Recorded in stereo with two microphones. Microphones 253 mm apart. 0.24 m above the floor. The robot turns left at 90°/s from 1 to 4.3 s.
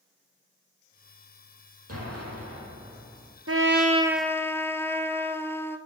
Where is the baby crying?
No baby crying in this recording.